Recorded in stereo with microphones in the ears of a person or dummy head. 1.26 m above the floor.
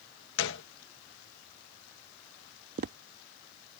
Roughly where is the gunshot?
Left.